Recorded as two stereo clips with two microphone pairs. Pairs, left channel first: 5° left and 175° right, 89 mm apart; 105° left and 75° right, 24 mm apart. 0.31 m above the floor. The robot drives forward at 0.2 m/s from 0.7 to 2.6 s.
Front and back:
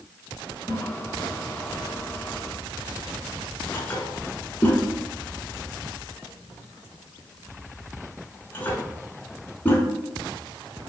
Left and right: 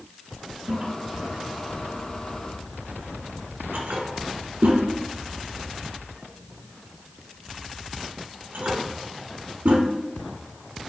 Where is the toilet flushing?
40° right, 1.0 m; by 9.8 s 60° right, 0.8 m.